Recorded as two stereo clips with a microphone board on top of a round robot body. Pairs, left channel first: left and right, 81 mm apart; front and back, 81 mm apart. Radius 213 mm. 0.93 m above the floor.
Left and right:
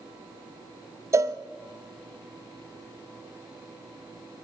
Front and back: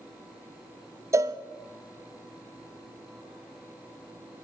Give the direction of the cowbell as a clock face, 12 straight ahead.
4 o'clock.